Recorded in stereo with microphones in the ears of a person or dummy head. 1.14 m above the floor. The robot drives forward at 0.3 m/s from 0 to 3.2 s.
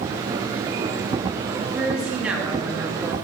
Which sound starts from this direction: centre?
A woman speaking, at 1.7 s.